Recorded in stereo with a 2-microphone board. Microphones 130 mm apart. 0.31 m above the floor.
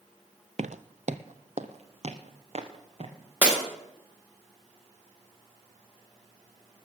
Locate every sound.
0.6 s footsteps: 65° right (ahead or behind), 0.5 m; by 3.1 s 55° right (ahead or behind), 2 m
3.4 s breaking glass: 15° right (ahead or behind), 5.5 m